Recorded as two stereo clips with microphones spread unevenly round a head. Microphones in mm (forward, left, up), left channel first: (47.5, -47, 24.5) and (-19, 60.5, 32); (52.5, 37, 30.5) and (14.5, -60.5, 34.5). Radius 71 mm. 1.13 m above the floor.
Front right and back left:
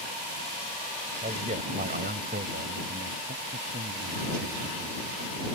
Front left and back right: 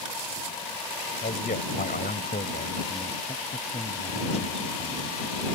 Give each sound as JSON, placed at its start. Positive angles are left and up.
{"t": 1.2, "sound": "a man speaking", "azimuth_deg": 85}